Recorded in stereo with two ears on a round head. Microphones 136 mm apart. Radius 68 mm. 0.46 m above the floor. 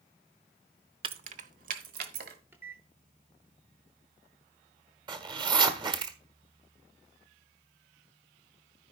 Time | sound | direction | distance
1.0 | keys jangling | 35° right (ahead or behind) | 0.6 m
2.5 | a microwave | 15° right (ahead or behind) | 0.9 m
5.1 | a zipper | 30° right (ahead or behind) | 1.3 m